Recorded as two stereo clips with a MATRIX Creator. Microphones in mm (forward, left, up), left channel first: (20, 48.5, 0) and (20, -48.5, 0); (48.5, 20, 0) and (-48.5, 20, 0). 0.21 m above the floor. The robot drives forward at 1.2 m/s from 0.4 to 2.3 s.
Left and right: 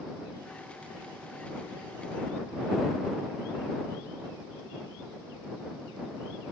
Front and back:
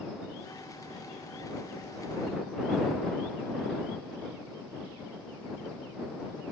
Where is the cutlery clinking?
I don't hear cutlery clinking.